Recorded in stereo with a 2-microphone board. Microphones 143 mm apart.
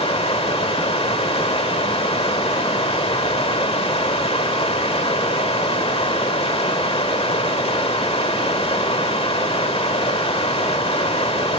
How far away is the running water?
About 1.6 m.